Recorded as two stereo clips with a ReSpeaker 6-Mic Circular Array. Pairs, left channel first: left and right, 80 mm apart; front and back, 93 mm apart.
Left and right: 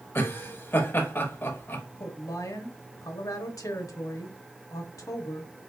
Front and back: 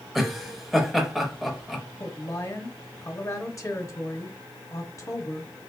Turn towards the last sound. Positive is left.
turn(degrees=50)